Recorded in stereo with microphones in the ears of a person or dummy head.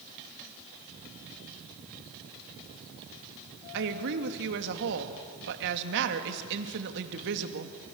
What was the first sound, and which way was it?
A woman speaking, 60° right (ahead or behind).